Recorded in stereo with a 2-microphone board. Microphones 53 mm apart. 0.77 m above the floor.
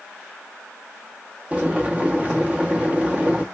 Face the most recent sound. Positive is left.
turn(degrees=-25)  # may be behind; listen again after turning